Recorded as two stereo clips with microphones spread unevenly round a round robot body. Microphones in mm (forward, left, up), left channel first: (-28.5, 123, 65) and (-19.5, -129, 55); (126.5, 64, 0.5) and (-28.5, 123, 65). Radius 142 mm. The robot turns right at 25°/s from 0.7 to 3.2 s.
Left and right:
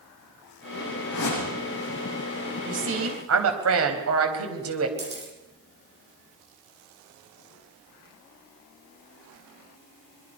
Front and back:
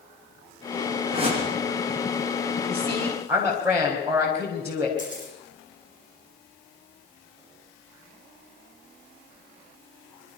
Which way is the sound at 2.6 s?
135° right.